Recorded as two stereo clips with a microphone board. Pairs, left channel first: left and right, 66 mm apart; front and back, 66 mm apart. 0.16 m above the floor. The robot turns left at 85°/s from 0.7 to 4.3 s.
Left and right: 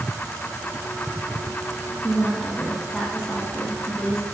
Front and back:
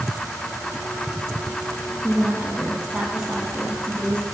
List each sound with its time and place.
2.0 s a woman speaking: 140° right, 1.4 m; by 4.2 s 30° left, 1.4 m